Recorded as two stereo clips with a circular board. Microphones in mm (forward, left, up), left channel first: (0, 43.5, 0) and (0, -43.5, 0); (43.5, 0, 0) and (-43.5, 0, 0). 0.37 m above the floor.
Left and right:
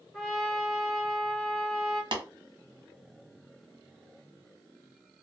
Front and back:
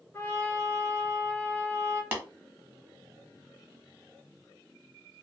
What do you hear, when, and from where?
0.1 s a trumpet: 10° left, 1.5 m
2.1 s tapping: 115° right, 1.0 m